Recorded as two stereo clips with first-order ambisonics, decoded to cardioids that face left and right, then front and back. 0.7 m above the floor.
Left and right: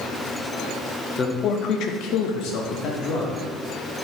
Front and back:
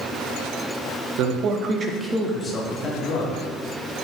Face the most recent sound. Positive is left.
turn(degrees=50)